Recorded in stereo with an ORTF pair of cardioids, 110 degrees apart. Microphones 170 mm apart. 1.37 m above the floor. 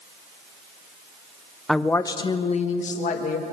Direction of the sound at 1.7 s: Straight ahead.